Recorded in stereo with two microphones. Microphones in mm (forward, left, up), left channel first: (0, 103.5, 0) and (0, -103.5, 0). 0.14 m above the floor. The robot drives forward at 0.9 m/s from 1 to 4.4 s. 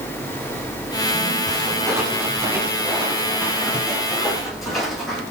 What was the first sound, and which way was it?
Footsteps, 20° right (ahead or behind).